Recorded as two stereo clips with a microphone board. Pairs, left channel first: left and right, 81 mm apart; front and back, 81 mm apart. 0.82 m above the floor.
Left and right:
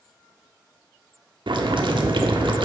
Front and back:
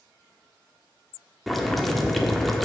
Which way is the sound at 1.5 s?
90° right.